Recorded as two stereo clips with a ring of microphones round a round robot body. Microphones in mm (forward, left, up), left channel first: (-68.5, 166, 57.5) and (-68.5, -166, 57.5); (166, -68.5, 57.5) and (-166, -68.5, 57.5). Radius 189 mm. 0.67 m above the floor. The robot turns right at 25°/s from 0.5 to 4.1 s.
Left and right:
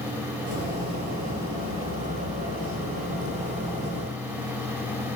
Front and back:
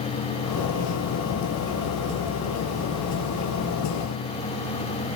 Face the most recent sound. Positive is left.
No sound to turn to.